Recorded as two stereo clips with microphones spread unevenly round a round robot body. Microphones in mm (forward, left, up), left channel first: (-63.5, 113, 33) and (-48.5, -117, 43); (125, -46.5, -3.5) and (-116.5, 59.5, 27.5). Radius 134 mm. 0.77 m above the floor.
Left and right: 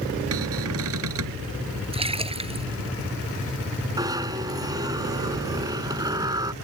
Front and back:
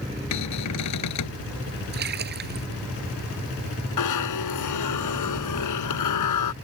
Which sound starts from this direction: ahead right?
A cupboard door, at 0.3 s.